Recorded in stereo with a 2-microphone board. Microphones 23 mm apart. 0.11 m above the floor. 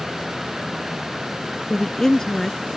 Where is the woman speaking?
20° left (ahead or behind).